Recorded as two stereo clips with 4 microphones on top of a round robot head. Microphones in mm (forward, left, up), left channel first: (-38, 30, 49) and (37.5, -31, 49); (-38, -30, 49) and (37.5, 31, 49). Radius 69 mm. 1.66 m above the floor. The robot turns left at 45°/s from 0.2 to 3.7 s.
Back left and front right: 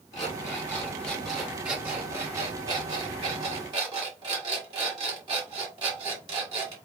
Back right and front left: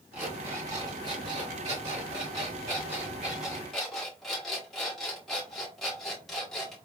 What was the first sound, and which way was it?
An alarm clock, 100° left.